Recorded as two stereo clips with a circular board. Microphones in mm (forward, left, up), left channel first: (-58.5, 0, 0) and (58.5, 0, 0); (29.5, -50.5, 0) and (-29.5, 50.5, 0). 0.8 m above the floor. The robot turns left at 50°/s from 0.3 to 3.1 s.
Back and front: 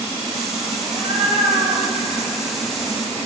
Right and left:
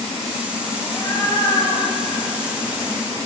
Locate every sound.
0.8 s a cat meowing: 15° left, 5 m; by 3.3 s 100° right, 5 m